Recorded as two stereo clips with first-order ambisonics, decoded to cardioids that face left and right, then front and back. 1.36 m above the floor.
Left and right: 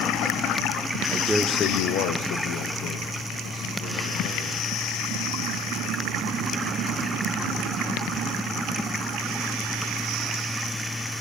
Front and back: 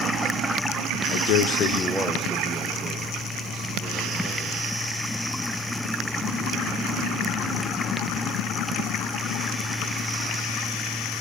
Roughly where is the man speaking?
Ahead.